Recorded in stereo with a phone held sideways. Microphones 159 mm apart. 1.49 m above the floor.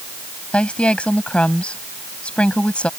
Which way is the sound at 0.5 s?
10° left (ahead or behind).